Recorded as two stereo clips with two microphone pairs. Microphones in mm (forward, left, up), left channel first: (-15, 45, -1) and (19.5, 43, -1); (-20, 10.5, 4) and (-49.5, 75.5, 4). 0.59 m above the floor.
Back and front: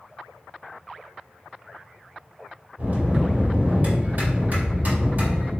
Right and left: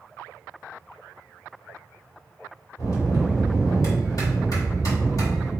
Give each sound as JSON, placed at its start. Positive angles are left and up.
{"t": 2.8, "sound": "a bell", "azimuth_deg": -35, "distance_m": 1.9}